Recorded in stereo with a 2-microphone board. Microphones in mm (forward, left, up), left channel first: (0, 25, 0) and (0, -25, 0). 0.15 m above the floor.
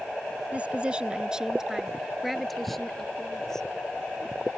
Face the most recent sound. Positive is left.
turn(degrees=10)  # may be behind; listen again after turning